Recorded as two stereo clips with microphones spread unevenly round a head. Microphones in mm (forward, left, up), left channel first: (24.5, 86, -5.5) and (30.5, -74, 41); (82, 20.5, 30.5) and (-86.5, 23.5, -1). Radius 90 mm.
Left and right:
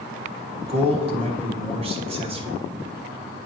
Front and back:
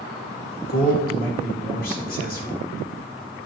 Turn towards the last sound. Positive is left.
turn(degrees=-40)